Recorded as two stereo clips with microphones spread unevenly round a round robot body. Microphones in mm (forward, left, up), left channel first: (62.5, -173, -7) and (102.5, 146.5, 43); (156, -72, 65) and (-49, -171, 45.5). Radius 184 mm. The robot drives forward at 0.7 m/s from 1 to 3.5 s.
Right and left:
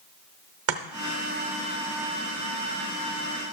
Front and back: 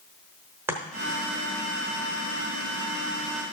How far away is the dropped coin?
No dropped coin in this recording.